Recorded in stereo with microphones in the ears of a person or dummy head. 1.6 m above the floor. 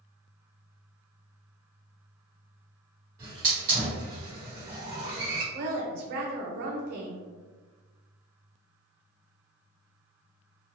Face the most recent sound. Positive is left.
turn(degrees=-60)  # may be behind; listen again after turning